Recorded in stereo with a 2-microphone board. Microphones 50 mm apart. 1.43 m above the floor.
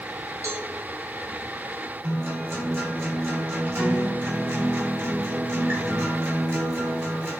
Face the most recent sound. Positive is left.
turn(degrees=-50)  # may be behind; listen again after turning